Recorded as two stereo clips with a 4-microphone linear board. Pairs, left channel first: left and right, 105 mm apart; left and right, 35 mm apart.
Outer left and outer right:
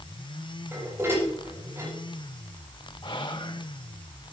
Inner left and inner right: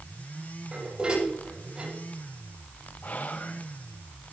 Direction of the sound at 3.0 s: 50° left (ahead or behind).